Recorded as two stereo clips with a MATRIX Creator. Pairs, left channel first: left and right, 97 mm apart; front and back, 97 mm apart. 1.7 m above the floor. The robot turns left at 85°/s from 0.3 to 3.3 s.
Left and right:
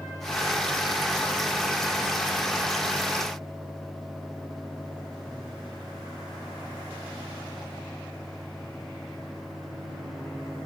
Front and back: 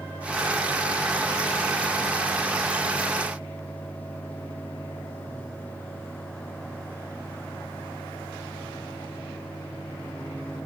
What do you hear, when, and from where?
Only background noise.